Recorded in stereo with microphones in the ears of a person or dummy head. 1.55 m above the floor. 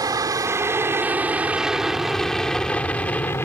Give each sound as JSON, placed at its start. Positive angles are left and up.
{"t": 0.0, "sound": "an aircraft", "side_deg": -20}